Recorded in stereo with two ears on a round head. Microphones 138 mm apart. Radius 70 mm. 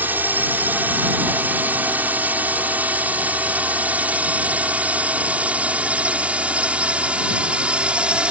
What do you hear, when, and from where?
0.0 s a drone: 10° right (ahead or behind); by 8.3 s 5° right (ahead or behind)